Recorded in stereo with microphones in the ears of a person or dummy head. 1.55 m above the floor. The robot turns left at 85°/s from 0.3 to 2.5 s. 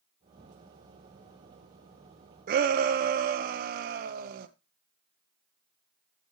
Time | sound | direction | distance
2.5 | a shout | 40° right (ahead or behind) | 0.7 m